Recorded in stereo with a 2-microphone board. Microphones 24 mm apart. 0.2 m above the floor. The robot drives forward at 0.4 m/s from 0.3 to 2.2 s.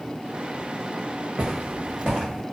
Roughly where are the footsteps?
Right.